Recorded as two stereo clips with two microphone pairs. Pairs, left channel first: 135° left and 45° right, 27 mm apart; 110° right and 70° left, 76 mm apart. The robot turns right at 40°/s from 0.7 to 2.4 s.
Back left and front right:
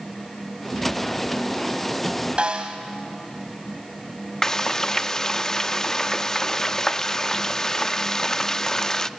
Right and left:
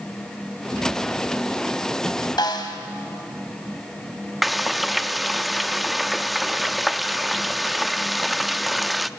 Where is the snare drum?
95° right, 2 m.